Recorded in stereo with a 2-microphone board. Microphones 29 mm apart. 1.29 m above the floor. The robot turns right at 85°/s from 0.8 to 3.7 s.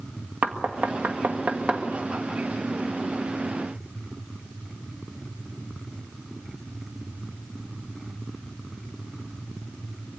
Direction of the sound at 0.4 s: 60° right (ahead or behind).